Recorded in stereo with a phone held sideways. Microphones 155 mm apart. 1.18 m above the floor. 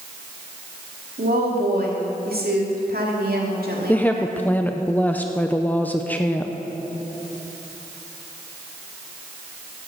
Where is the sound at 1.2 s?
75° right (ahead or behind), 2.5 m.